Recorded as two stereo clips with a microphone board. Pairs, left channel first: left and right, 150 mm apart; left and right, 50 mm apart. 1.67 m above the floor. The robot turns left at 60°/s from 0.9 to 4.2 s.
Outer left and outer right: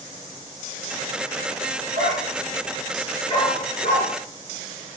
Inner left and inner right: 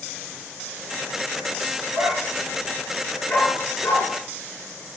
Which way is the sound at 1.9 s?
50° right (ahead or behind).